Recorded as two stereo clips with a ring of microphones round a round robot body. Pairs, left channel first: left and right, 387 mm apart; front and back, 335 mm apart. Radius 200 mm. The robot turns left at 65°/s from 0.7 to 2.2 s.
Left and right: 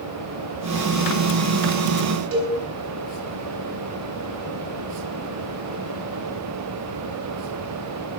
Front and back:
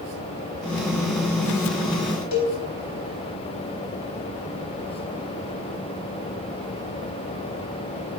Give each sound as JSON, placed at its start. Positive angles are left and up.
{"t": 2.3, "sound": "a cowbell", "azimuth_deg": -35, "distance_m": 4.5}